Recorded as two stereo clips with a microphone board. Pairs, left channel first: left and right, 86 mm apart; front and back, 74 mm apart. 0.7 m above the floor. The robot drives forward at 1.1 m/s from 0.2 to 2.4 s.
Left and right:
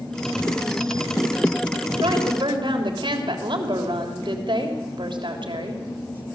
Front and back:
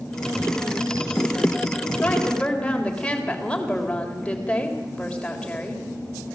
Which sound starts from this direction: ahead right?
A woman speaking, at 2.0 s.